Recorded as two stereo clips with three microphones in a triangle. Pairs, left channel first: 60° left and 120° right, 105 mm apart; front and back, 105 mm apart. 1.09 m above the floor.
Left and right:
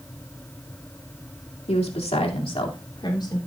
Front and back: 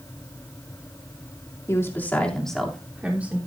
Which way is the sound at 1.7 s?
65° left.